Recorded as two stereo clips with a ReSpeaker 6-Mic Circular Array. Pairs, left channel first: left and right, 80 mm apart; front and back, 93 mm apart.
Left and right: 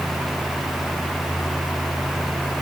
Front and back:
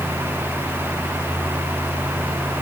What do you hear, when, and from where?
Only background noise.